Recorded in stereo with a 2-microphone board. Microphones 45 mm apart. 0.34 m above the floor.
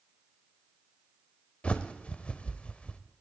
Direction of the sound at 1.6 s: 25° left (ahead or behind).